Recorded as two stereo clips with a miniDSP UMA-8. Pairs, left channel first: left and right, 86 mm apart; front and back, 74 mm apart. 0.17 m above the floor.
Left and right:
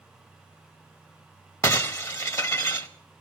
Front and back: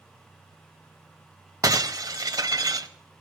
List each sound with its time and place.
1.6 s breaking glass: 140° left, 1.2 m